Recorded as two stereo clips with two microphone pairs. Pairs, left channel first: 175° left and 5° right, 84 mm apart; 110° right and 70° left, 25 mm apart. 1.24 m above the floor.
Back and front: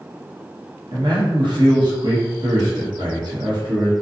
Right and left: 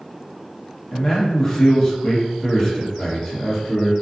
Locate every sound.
0.9 s a man speaking: 40° right, 1.0 m